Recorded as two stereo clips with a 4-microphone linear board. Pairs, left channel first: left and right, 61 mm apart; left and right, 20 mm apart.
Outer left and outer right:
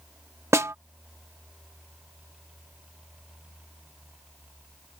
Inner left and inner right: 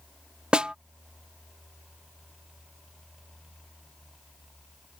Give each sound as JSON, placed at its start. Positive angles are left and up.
{"t": 0.5, "sound": "a snare drum", "side_deg": -50}